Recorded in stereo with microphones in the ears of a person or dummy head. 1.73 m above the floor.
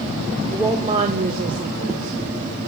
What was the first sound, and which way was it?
A woman speaking, centre (ahead or behind).